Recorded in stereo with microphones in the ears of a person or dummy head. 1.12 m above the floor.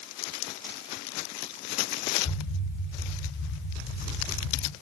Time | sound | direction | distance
2.2 | an explosion | 75° left (ahead or behind) | 3 m